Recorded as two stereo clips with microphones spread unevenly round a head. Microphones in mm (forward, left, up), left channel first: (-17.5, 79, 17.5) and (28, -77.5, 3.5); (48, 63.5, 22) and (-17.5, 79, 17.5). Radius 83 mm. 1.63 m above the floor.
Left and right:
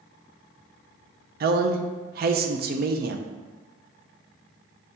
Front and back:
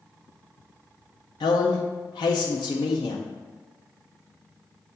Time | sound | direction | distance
1.4 | a man speaking | 40° right | 0.5 m